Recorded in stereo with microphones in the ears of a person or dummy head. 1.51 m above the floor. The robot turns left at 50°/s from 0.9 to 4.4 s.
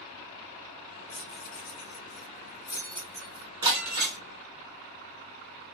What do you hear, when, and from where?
1.1 s keys jangling: 70° left (ahead or behind), 1.7 m; by 3.5 s 15° right (ahead or behind), 1.7 m
3.6 s breaking glass: 25° right (ahead or behind), 1.1 m; by 4.2 s 40° right (ahead or behind), 1.1 m